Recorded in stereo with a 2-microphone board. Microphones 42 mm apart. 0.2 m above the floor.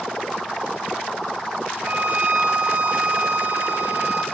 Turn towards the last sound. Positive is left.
turn(degrees=-70)  # may be behind; listen again after turning